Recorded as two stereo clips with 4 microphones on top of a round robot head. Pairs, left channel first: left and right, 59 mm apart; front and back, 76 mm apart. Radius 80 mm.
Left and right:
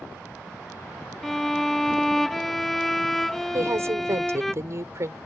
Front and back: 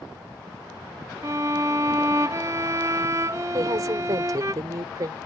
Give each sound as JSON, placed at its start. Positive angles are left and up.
{"t": 1.2, "sound": "a violin", "azimuth_deg": 175}
{"t": 3.5, "sound": "a woman speaking", "azimuth_deg": -130}